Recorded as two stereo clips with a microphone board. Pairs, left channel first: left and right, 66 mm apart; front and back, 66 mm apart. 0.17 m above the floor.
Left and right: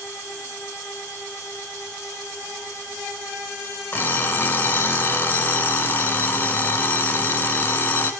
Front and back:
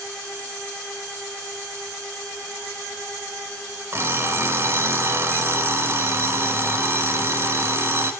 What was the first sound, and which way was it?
An alarm clock, 140° left.